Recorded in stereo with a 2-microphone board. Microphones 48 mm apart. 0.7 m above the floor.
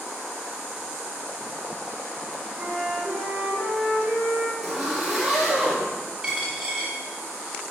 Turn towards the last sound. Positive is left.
turn(degrees=-15)  # may be behind; listen again after turning